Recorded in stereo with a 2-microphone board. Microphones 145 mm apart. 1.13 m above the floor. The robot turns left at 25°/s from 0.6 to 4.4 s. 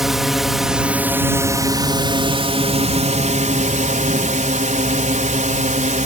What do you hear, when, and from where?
0.0 s a drone: 5° right; by 6.1 s 100° right